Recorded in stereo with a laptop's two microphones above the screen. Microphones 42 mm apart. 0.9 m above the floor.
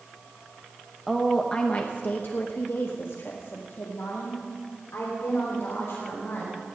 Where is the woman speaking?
5° right (ahead or behind), 0.8 m; by 6.5 s 70° left (ahead or behind), 4 m.